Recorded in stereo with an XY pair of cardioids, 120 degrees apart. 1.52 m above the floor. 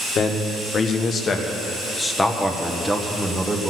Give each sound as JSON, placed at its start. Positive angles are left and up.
{"t": 0.1, "sound": "a man speaking", "azimuth_deg": 55, "distance_m": 1.7}